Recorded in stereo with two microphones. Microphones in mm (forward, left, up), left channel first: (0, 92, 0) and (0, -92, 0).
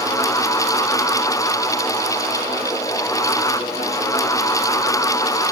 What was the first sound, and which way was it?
Only background noise.